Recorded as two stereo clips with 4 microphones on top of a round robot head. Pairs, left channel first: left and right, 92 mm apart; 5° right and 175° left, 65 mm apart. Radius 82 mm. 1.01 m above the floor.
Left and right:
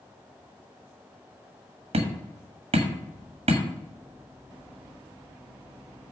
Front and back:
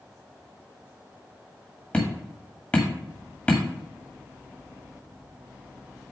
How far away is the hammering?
About 1.7 m.